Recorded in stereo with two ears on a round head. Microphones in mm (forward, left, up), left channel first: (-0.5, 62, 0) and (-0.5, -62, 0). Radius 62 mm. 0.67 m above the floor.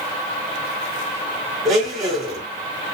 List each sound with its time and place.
1.6 s a blender: centre (ahead or behind), 1.8 m